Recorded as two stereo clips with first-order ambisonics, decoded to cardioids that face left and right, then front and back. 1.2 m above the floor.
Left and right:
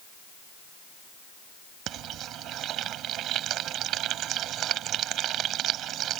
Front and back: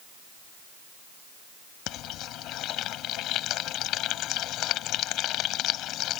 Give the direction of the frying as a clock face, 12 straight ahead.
1 o'clock.